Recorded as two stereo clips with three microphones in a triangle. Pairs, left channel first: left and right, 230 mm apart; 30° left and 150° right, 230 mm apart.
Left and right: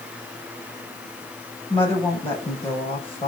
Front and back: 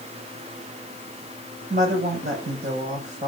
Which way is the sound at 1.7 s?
155° left.